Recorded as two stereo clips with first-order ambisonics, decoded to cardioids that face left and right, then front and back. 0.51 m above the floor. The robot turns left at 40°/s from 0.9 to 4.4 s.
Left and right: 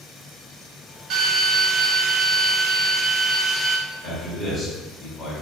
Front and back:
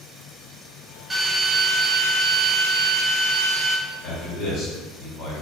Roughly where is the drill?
Right.